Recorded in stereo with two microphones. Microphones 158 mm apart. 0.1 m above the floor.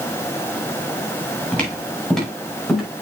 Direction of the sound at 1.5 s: 10° left (ahead or behind).